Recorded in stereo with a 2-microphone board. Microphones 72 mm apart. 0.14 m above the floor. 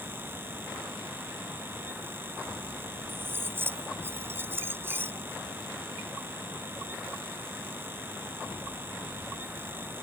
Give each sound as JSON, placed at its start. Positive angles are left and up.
{"t": 3.1, "sound": "cutlery clinking", "side_deg": -30}